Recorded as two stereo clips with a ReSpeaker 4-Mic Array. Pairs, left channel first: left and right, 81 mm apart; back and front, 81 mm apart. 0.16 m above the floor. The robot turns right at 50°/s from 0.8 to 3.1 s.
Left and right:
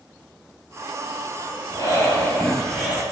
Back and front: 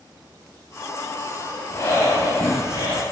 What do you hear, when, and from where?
1.7 s breathing: 125° left, 2 m; by 3.0 s 170° right, 2 m